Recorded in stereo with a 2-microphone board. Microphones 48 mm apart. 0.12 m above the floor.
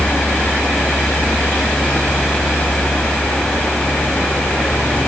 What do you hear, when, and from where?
Only background noise.